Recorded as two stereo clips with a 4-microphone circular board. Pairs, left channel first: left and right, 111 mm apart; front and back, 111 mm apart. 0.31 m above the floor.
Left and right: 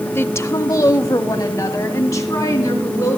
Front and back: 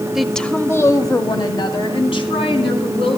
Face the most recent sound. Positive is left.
turn(degrees=30)